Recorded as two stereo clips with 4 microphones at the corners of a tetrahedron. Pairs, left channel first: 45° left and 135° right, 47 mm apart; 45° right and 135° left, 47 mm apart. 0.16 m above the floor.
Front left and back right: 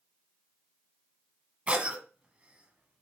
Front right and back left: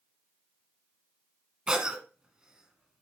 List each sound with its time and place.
1.7 s a cough: 165° right, 1.4 m